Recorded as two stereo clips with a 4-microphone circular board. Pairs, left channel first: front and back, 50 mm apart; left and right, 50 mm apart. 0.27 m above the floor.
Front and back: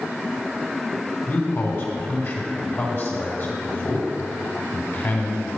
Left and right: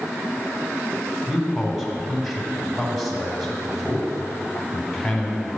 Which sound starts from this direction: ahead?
A man speaking, at 1.3 s.